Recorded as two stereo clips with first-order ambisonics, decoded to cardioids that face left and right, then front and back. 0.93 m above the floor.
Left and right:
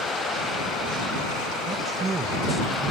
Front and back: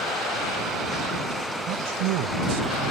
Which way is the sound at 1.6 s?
160° right.